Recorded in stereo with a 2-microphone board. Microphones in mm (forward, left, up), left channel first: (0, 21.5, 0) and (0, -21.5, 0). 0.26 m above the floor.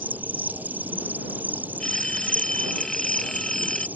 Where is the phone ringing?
10° left (ahead or behind).